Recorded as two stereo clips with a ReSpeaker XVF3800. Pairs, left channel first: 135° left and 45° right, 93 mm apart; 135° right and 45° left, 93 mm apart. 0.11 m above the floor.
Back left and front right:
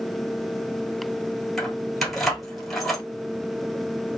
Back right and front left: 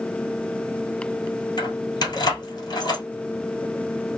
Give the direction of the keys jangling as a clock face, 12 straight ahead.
5 o'clock.